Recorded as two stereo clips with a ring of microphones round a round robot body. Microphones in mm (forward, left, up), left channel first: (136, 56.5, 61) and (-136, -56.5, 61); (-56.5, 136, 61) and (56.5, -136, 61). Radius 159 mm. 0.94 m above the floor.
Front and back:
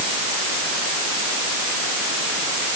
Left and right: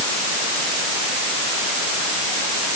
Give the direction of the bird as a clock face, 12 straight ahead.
No bird in this recording.